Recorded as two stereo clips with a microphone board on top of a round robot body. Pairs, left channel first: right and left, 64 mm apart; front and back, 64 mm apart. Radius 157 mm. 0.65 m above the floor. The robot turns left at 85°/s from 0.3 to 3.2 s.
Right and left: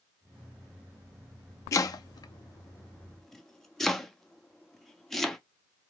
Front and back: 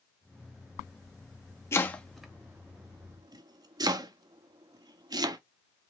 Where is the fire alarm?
I don't hear a fire alarm.